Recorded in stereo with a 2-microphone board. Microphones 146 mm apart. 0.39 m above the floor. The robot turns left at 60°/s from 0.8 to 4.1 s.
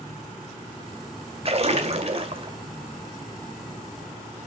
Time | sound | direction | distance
1.4 | a splash | 65° right | 1.9 m